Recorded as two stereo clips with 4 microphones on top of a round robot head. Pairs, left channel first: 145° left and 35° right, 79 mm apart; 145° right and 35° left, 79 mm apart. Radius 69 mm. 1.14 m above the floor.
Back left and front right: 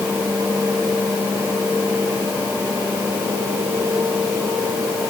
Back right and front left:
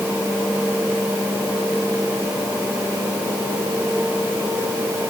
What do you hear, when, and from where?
Only background noise.